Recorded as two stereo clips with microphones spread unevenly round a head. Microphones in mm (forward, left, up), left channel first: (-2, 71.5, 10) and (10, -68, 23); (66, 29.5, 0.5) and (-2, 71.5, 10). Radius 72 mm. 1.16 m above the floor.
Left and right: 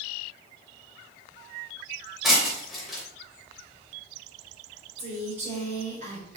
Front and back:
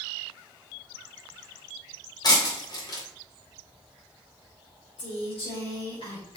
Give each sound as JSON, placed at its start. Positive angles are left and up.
{"t": 2.2, "sound": "breaking glass", "azimuth_deg": 5, "distance_m": 3.0}
{"t": 5.0, "sound": "a woman speaking", "azimuth_deg": -45, "distance_m": 3.5}